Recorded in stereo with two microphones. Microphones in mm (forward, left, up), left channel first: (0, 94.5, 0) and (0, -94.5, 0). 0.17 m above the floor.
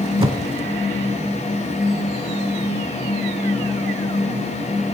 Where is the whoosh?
30° right (ahead or behind), 0.6 m.